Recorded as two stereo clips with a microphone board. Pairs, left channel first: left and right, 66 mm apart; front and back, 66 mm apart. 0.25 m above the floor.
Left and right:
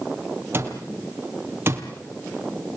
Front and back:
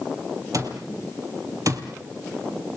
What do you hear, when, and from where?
0.5 s an alarm clock: 145° right, 3 m